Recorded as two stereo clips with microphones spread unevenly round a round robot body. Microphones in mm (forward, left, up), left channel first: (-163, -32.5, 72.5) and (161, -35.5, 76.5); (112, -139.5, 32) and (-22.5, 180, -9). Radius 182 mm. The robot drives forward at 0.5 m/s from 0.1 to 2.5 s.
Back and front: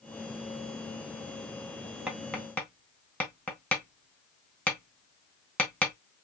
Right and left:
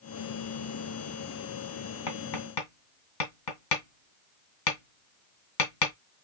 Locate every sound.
2.1 s tapping: 90° right, 1.9 m; by 5.9 s 95° right, 1.9 m